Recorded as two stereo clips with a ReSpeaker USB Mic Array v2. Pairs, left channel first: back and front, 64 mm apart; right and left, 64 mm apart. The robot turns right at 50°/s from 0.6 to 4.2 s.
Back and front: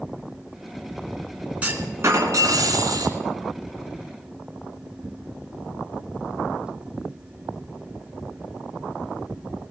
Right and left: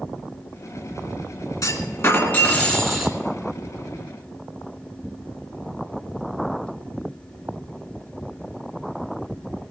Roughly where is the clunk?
Right.